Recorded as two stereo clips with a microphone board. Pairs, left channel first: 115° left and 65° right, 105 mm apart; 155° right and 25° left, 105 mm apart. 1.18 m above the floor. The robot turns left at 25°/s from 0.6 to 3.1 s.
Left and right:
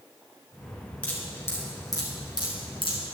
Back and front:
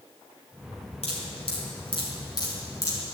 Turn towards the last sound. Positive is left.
turn(degrees=135)